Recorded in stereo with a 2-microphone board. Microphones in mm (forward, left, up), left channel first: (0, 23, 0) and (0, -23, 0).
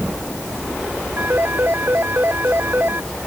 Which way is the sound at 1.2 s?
50° right (ahead or behind).